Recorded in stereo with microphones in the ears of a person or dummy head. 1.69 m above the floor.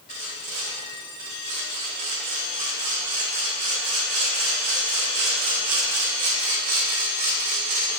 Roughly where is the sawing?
Right.